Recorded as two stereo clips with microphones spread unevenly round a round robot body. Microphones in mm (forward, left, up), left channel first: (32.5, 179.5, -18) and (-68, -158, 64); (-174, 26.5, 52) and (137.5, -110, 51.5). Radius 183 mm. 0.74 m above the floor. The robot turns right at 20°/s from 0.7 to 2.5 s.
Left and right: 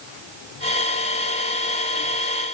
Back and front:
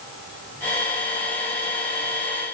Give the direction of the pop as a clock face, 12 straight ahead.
I don't hear a pop.